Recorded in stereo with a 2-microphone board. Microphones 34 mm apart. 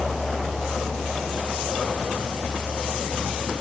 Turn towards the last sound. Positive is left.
No sound to turn to.